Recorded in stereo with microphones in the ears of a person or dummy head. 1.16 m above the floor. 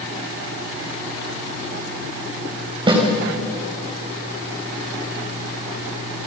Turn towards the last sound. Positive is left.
turn(degrees=-25)  # may be behind; listen again after turning